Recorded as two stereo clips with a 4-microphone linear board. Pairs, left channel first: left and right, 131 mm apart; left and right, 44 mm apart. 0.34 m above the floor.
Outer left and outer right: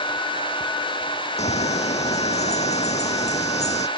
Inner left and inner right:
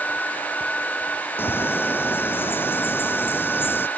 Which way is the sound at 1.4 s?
65° left (ahead or behind).